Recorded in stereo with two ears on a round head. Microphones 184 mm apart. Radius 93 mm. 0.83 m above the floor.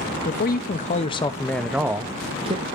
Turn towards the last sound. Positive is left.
turn(degrees=-30)  # may be behind; listen again after turning